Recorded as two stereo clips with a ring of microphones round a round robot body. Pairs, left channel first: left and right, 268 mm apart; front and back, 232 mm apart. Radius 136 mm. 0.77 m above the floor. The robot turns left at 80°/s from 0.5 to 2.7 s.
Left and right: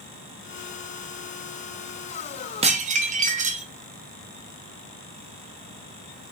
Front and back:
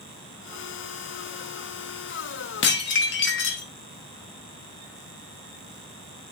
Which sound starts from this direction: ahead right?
Dishes clattering, at 2.6 s.